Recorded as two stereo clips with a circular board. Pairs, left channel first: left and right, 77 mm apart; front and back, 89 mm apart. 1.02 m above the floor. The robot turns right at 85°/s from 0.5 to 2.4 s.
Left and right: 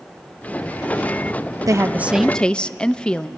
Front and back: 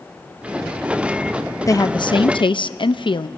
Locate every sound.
1.7 s a woman speaking: 50° right, 0.7 m; by 3.3 s 10° left, 0.7 m